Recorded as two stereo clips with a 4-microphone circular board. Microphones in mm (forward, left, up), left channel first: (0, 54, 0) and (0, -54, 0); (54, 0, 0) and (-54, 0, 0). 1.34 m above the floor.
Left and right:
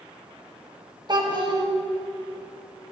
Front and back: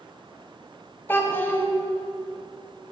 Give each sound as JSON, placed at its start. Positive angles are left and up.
{"t": 1.1, "sound": "a child speaking", "azimuth_deg": -65, "distance_m": 0.8}